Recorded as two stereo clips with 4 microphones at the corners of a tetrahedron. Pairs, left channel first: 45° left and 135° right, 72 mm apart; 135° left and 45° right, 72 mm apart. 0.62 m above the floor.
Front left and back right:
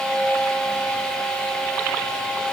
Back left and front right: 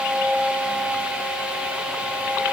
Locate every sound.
Only background noise.